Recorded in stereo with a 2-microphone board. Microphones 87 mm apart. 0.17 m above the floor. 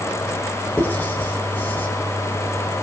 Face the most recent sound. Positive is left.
turn(degrees=25)  # may be behind; listen again after turning